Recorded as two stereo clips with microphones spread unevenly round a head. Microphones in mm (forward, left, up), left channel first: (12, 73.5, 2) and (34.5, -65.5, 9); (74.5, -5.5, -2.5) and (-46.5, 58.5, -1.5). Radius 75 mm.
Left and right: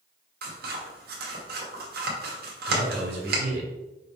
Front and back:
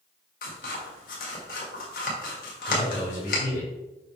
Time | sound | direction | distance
0.4 | scissors | 65° right | 2 m
2.7 | a man speaking | 75° right | 3 m